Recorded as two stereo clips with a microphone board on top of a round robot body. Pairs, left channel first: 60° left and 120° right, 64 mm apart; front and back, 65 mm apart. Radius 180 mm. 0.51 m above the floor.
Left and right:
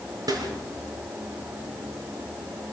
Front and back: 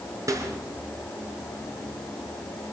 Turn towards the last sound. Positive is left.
turn(degrees=-145)